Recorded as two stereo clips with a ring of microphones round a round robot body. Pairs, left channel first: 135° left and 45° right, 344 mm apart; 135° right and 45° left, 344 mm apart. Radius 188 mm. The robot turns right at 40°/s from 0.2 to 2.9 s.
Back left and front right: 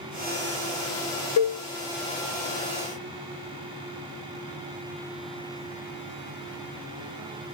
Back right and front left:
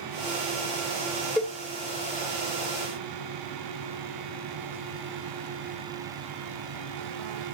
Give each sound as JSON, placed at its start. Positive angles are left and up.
{"t": 1.4, "sound": "a cowbell", "azimuth_deg": 140, "distance_m": 1.0}